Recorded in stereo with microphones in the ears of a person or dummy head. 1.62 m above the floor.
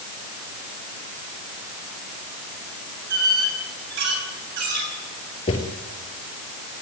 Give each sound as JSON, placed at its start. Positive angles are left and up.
{"t": 3.1, "sound": "a squeak", "side_deg": -60, "distance_m": 6.0}
{"t": 5.5, "sound": "footsteps", "side_deg": 25, "distance_m": 2.0}